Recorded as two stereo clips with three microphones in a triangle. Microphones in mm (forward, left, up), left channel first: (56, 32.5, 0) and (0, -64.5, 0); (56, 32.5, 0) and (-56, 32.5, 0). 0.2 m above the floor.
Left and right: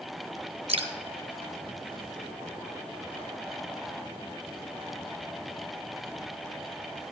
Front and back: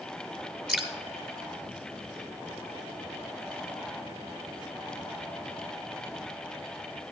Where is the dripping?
95° right, 1.4 m.